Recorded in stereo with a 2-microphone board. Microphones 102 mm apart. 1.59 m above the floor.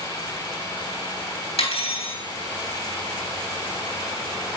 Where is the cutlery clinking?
75° left (ahead or behind), 2.5 m.